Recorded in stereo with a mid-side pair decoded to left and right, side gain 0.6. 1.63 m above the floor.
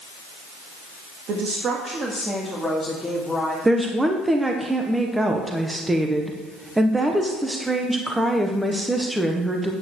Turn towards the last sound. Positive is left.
turn(degrees=-10)